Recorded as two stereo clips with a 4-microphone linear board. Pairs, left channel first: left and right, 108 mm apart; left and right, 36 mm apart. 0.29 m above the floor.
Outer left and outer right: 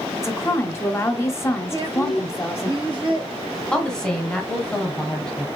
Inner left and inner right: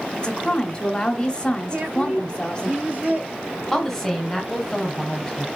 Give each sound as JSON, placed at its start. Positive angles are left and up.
{"t": 0.2, "sound": "a woman speaking", "side_deg": 25, "distance_m": 1.0}
{"t": 1.7, "sound": "a woman speaking", "side_deg": -50, "distance_m": 1.8}
{"t": 3.7, "sound": "a woman speaking", "side_deg": 5, "distance_m": 1.6}